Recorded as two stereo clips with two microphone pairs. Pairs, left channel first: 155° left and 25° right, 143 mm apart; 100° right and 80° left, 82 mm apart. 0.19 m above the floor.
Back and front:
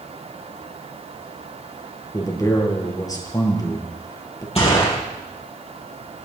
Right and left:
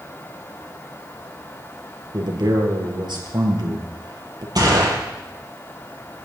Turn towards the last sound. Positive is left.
turn(degrees=110)